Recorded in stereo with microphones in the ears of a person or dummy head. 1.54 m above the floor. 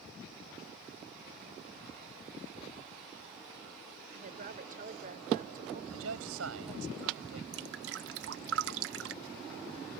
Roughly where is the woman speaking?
Right.